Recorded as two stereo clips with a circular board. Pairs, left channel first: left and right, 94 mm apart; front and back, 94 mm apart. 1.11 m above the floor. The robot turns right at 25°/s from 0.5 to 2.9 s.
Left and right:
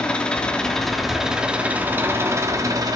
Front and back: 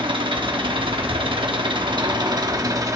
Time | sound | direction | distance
0.0 | an engine running | 165° left | 1.1 m